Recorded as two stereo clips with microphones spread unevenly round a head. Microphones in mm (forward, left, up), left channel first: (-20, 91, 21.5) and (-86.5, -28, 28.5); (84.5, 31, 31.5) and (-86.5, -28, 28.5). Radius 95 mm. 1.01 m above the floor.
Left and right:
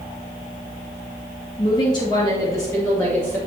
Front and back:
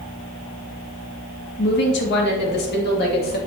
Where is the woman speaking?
5° left, 1.6 m; by 3.4 s 15° right, 2 m.